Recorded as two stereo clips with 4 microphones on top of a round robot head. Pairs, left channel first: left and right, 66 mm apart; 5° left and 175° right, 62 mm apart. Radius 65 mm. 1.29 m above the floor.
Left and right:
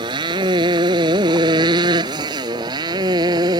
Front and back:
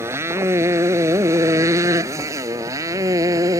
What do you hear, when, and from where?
0.0 s a motorcycle: 115° right; by 3.6 s 125° right